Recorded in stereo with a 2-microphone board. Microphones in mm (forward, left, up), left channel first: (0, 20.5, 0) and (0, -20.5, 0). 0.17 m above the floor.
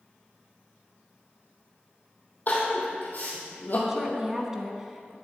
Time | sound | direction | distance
2.5 | crying | 50° left (ahead or behind) | 2.5 m
3.9 | a woman speaking | 15° right (ahead or behind) | 1.2 m